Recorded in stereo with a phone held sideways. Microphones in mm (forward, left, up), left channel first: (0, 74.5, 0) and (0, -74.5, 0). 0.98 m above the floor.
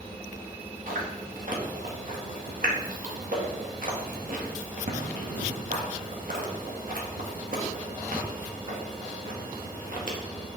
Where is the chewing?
65° right (ahead or behind), 1.9 m.